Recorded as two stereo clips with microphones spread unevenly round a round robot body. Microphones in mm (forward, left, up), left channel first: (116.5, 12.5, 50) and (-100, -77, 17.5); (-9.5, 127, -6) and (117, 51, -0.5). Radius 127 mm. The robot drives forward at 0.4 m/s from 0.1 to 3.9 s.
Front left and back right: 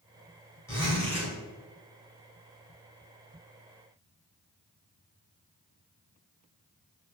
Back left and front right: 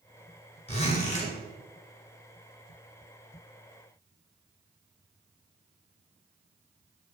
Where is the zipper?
105° left, 3 m; by 1.3 s 110° left, 3 m.